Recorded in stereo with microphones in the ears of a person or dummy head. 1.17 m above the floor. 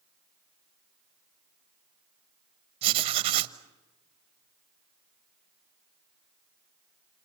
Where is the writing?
30° right (ahead or behind), 1.1 m.